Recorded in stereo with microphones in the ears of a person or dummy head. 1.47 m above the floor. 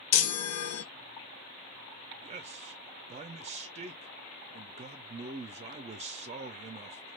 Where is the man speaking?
35° right (ahead or behind), 0.5 m.